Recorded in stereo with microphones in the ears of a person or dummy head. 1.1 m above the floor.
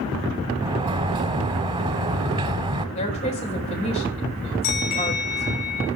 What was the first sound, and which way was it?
A sliding door, 25° right (ahead or behind).